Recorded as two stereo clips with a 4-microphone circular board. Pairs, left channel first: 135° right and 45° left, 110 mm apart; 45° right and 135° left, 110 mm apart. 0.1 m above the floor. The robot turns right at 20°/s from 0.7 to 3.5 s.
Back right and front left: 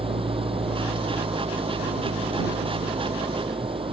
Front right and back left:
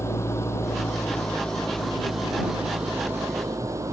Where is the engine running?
20° left; by 3.9 s 75° left.